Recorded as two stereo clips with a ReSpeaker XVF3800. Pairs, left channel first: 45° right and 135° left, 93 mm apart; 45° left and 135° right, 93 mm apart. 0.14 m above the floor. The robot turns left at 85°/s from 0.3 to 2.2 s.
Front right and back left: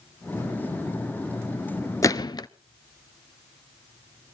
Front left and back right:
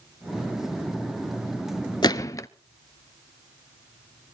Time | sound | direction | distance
2.0 | a gunshot | 10° left | 0.5 m